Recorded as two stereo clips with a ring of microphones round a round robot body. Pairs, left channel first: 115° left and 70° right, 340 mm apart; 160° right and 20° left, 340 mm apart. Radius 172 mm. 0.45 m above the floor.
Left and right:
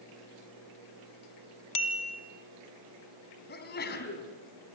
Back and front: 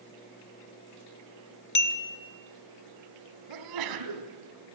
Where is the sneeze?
50° left, 3 m.